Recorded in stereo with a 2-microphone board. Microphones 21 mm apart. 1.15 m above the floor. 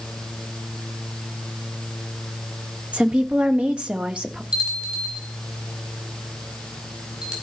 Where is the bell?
55° right (ahead or behind), 5 m.